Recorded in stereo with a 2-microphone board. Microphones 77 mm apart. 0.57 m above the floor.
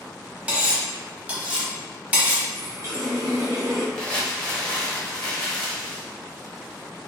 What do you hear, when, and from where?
0.5 s cutlery clinking: 20° right (ahead or behind), 0.9 m
2.5 s a running tap: 45° right (ahead or behind), 0.9 m
4.0 s crumpling: 10° left (ahead or behind), 1.1 m